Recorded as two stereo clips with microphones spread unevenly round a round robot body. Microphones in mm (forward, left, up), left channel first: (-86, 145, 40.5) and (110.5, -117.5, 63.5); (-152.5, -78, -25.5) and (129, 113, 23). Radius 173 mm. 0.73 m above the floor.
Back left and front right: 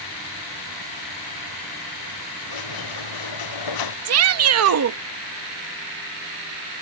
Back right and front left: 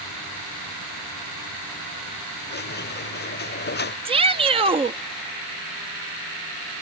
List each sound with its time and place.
2.5 s a squeak: 150° left
4.0 s a shout: 45° right